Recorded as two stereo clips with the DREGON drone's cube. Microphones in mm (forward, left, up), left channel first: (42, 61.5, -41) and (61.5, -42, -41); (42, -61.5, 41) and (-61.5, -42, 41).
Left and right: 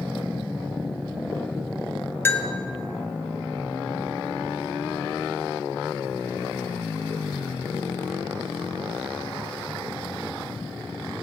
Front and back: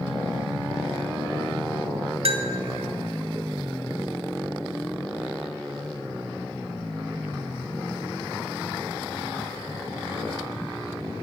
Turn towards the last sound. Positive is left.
turn(degrees=165)